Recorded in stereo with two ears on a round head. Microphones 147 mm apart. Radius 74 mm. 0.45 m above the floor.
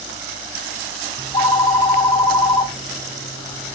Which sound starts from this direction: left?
A phone ringing, at 1.2 s.